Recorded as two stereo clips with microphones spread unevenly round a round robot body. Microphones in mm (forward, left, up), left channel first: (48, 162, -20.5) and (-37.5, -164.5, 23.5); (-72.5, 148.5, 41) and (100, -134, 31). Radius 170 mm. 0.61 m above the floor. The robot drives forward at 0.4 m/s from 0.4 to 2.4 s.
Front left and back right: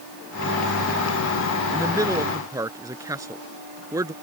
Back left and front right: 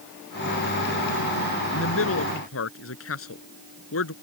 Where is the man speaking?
175° left.